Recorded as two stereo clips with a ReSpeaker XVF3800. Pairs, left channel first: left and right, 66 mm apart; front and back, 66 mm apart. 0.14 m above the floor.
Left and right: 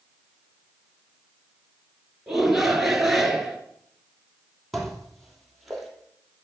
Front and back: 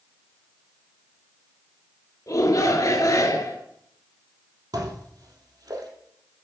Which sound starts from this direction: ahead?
A shout, at 2.3 s.